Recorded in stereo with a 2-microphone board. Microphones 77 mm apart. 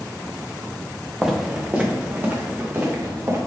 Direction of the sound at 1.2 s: 5° right (ahead or behind).